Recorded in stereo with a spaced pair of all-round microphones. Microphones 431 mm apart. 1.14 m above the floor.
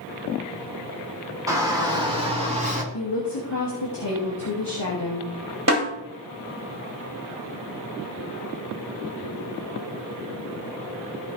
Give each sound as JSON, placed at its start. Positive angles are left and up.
{"t": 1.5, "sound": "a shout", "side_deg": -10, "distance_m": 4.0}
{"t": 2.9, "sound": "a woman speaking", "side_deg": 65, "distance_m": 2.0}
{"t": 5.7, "sound": "a snare drum", "side_deg": -35, "distance_m": 3.0}